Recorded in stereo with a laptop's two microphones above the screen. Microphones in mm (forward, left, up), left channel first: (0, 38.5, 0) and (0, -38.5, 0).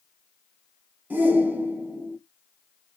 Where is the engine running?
No engine running in this recording.